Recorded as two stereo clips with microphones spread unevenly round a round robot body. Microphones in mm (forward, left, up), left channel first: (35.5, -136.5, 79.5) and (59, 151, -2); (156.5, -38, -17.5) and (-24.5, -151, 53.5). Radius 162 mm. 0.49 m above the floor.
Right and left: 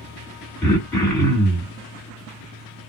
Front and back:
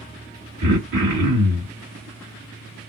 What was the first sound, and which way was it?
Throat clearing, 170° left.